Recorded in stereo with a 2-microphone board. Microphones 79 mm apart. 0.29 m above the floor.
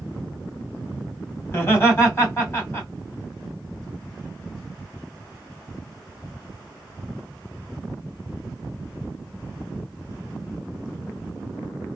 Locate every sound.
1.5 s laughter: 30° left (ahead or behind), 1.9 m